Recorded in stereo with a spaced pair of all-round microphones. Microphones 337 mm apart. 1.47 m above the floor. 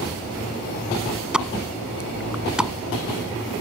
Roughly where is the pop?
Centre.